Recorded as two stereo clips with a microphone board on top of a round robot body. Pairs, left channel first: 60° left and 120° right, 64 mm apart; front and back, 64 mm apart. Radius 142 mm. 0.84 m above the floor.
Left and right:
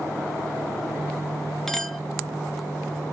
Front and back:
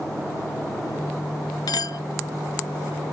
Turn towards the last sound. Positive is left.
turn(degrees=-25)